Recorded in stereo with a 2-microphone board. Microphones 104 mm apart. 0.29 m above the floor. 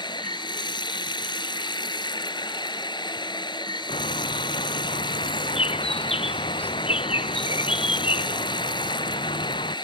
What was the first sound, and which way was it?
Running water, 50° left (ahead or behind).